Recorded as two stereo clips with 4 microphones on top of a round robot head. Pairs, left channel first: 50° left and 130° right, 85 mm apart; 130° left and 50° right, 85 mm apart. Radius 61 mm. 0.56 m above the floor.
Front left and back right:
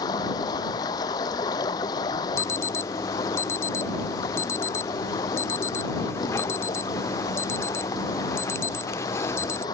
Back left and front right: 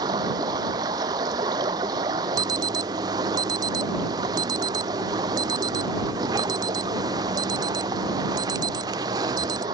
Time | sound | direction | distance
0.0 | running water | straight ahead | ?
2.4 | an alarm | 10° right | ?